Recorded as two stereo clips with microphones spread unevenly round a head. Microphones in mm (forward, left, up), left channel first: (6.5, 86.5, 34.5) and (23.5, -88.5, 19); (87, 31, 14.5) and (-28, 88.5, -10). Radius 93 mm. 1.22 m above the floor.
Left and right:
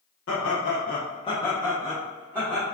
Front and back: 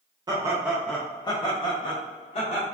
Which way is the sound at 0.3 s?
90° left.